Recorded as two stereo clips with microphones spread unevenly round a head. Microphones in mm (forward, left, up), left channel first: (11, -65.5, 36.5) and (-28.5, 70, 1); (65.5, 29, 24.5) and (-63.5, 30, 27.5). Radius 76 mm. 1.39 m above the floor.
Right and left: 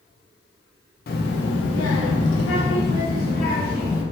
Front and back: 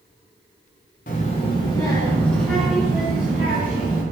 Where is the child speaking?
45° right, 0.8 m; by 4.0 s 105° right, 2 m.